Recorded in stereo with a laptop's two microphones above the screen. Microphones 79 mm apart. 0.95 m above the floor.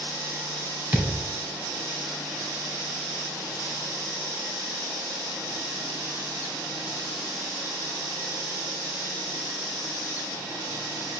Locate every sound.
0.9 s a thud: 30° right (ahead or behind), 1.4 m